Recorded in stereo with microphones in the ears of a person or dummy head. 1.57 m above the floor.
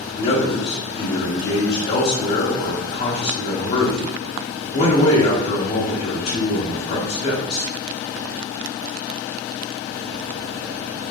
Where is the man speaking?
35° left (ahead or behind), 0.9 m.